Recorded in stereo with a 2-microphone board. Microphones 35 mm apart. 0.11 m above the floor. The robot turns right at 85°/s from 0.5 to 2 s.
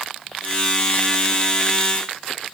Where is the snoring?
No snoring in this recording.